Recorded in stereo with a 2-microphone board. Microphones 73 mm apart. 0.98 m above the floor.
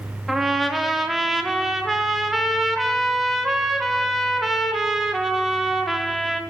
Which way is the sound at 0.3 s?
Centre (ahead or behind).